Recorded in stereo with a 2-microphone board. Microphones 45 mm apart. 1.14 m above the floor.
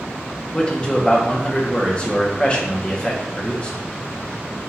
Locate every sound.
0.5 s a man speaking: 25° left (ahead or behind), 1.0 m